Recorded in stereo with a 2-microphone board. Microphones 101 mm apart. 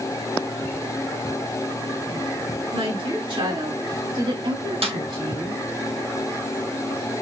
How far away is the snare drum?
About 1.2 m.